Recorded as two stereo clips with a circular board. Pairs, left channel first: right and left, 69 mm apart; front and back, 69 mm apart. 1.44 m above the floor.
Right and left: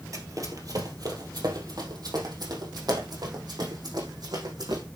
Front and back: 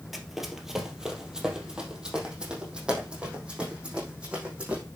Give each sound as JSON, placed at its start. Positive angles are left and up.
{"t": 0.1, "sound": "running footsteps", "azimuth_deg": 95, "distance_m": 2.0}